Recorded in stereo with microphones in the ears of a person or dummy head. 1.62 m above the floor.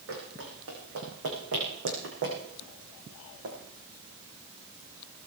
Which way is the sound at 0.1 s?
75° right (ahead or behind).